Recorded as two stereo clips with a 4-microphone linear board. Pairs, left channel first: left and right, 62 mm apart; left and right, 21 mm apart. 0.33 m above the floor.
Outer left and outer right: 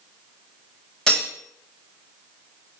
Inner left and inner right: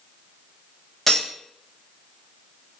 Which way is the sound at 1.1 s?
10° left (ahead or behind).